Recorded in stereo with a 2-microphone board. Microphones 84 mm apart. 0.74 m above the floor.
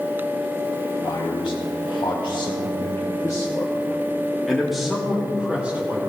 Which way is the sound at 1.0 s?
70° left (ahead or behind).